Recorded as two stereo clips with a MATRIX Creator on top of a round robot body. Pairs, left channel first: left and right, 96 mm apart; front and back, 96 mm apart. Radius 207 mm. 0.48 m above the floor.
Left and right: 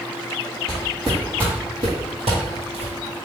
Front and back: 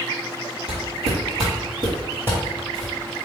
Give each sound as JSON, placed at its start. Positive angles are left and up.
{"t": 0.7, "sound": "footsteps", "azimuth_deg": 175, "distance_m": 1.5}